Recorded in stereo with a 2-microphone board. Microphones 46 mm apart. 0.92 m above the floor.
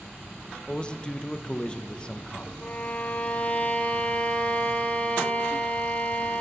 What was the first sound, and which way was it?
A man speaking, 20° left (ahead or behind).